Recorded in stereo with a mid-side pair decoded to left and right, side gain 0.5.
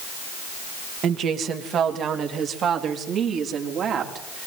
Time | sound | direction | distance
1.0 | a woman speaking | 60° right | 2 m